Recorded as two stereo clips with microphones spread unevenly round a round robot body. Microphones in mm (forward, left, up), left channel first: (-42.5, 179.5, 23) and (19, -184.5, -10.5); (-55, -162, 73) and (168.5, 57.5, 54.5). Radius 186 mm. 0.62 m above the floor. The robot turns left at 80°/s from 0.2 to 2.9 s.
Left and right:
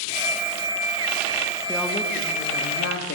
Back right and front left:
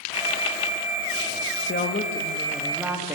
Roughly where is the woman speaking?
Behind right.